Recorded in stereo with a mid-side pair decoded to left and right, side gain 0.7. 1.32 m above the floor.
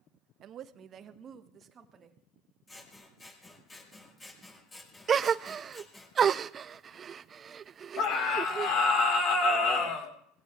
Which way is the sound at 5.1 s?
30° right.